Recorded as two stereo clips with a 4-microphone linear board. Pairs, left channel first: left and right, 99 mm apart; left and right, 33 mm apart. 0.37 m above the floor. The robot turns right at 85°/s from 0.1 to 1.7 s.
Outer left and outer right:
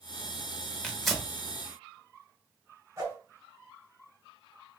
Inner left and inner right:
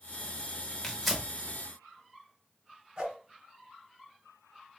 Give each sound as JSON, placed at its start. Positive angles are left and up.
{"t": 0.8, "sound": "tearing paper", "side_deg": 10, "distance_m": 0.7}
{"t": 3.0, "sound": "a whoosh", "side_deg": -30, "distance_m": 1.0}